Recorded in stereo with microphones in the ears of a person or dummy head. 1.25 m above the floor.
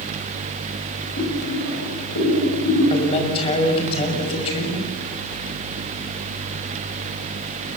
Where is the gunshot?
No gunshot in this recording.